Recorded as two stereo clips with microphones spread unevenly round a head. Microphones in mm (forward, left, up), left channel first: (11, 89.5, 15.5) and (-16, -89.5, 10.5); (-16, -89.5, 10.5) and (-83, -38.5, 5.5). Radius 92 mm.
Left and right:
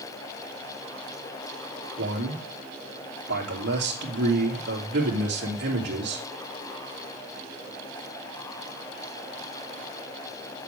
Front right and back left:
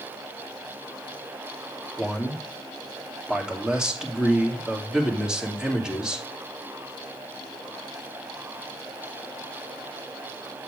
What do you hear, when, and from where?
2.0 s a man speaking: 135° right, 2.5 m